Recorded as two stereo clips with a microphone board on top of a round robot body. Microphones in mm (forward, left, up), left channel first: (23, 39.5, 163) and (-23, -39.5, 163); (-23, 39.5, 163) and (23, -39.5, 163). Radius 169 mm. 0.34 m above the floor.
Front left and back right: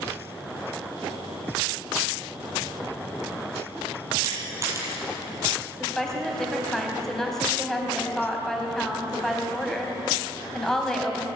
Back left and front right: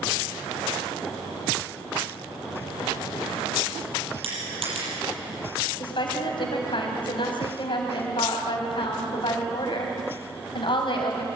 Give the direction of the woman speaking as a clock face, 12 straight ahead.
7 o'clock.